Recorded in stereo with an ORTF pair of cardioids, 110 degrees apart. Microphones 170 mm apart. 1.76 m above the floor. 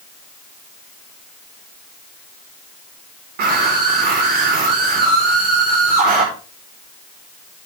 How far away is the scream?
About 5.5 m.